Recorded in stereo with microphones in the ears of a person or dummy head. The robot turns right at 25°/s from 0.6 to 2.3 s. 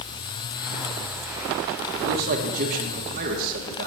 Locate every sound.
1.9 s a man speaking: 55° right (ahead or behind), 1.4 m; by 3.9 s 45° right (ahead or behind), 1.4 m